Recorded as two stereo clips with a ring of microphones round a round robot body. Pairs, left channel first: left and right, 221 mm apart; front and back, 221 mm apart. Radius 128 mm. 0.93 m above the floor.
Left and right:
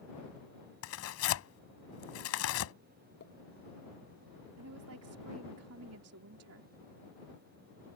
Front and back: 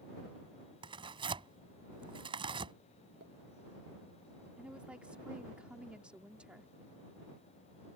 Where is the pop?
130° left.